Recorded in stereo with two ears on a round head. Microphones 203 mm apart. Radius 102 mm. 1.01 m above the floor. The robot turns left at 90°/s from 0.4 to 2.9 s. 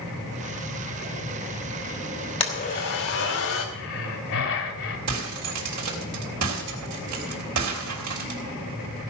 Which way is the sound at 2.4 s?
155° left.